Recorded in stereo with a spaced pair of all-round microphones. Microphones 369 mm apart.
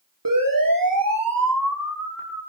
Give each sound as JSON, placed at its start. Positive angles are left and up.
{"t": 0.2, "sound": "a siren", "side_deg": -65, "distance_m": 5.5}